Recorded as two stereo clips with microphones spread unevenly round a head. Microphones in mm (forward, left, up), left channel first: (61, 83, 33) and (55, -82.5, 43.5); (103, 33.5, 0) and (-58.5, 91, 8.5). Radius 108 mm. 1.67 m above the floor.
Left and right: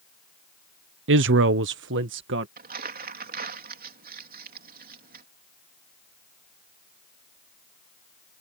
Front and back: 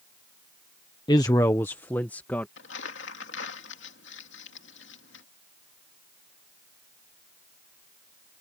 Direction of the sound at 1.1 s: 90° right.